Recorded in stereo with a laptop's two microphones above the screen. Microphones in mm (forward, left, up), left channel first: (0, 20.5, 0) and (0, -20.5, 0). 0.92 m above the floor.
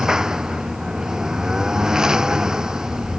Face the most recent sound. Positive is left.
turn(degrees=-15)  # may be behind; listen again after turning